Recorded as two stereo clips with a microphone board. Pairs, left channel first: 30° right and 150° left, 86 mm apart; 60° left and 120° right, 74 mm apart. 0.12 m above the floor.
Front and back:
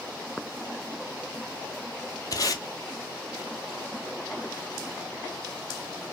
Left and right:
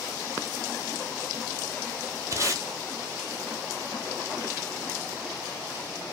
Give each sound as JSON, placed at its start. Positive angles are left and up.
{"t": 2.3, "sound": "tape being pulled", "azimuth_deg": -75, "distance_m": 0.7}